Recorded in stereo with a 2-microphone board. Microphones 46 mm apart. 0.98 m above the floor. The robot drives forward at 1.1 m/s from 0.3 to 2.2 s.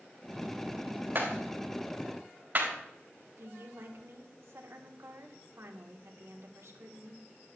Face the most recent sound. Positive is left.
turn(degrees=-75)  # may be behind; listen again after turning